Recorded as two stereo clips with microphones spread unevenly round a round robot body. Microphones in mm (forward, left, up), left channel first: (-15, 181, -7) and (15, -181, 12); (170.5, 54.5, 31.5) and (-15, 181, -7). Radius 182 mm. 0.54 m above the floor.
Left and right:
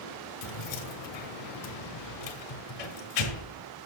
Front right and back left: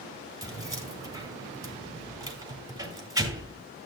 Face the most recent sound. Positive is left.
turn(degrees=70)